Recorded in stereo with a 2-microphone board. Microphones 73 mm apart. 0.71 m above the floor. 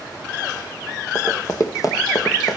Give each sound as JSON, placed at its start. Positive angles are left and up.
{"t": 1.1, "sound": "running footsteps", "side_deg": 35, "distance_m": 1.7}